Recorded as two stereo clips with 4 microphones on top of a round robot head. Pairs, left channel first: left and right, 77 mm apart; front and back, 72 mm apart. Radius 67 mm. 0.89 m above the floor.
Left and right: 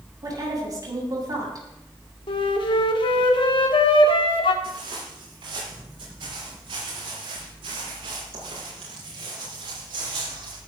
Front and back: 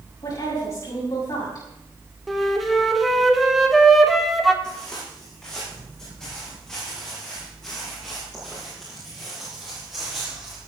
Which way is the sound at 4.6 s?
80° right.